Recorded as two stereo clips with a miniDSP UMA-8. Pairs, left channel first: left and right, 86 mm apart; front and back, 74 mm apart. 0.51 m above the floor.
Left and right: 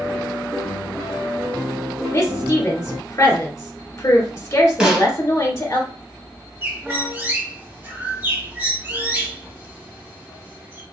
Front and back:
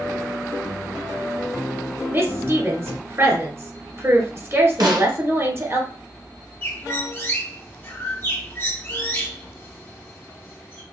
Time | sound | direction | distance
2.1 | a woman speaking | 140° left | 1.7 m
4.8 | a snare drum | 170° right | 1.3 m
6.6 | a bird | 40° right | 1.2 m